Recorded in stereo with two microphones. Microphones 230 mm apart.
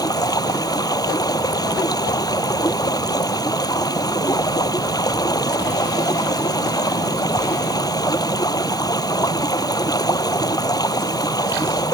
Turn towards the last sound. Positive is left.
turn(degrees=15)  # may be behind; listen again after turning